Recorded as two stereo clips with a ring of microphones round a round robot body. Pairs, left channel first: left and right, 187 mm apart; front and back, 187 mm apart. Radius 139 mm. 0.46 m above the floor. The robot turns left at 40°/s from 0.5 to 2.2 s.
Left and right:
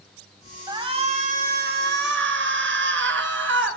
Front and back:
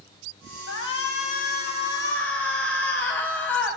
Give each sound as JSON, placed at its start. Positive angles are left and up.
{"t": 0.7, "sound": "a shout", "azimuth_deg": -20, "distance_m": 4.0}